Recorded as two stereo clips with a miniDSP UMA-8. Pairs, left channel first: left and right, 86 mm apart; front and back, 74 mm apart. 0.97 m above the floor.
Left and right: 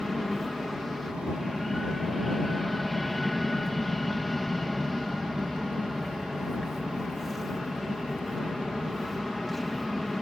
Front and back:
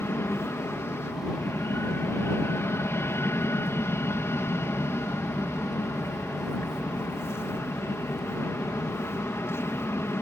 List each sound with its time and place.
0.0 s an aircraft: 5° left